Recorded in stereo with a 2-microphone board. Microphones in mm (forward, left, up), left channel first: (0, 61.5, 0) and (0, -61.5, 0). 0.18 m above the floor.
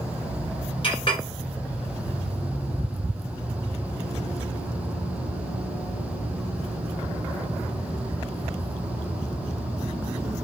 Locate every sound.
0.8 s a clink: 45° left (ahead or behind), 1.5 m